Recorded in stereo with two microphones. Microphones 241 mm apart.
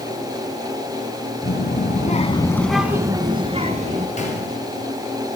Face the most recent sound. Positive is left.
turn(degrees=30)  # may be behind; listen again after turning